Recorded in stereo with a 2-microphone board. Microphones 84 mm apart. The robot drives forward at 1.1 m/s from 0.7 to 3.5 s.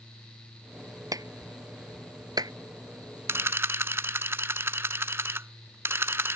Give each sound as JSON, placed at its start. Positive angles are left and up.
{"t": 1.1, "sound": "a clap", "side_deg": -50}
{"t": 3.3, "sound": "a camera shutter", "side_deg": -35}